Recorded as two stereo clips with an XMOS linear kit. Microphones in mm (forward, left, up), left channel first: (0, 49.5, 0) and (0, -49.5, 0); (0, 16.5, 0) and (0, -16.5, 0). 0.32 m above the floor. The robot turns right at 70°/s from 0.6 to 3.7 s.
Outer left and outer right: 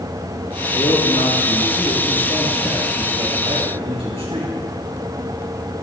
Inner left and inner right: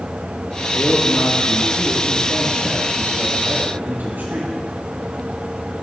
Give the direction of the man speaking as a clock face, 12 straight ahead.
10 o'clock.